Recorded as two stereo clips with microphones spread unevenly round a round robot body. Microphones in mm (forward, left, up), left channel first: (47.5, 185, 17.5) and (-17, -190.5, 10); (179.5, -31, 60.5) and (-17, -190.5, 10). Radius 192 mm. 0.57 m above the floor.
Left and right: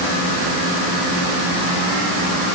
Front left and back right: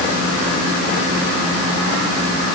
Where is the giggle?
No giggle in this recording.